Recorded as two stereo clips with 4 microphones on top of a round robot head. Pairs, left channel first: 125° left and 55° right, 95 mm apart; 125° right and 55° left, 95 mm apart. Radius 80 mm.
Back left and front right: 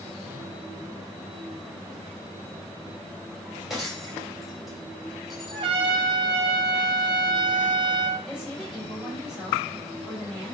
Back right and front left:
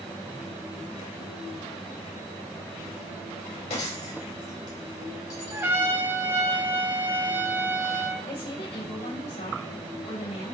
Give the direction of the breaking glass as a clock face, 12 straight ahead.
5 o'clock.